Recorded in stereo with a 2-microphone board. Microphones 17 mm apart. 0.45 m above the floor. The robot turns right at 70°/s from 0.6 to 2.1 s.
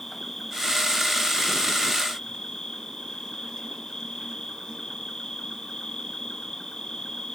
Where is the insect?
25° left, 2 m; by 7.4 s 130° left, 2 m.